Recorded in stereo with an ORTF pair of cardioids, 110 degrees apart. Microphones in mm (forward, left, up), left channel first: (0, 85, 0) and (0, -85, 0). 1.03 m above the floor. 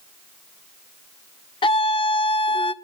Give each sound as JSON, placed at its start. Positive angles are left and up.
{"t": 1.6, "sound": "a scream", "azimuth_deg": 30, "distance_m": 1.0}